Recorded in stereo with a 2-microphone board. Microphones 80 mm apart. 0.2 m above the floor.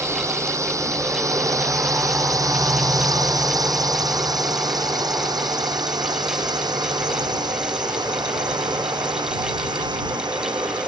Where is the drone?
35° right (ahead or behind); by 10.9 s 65° right (ahead or behind).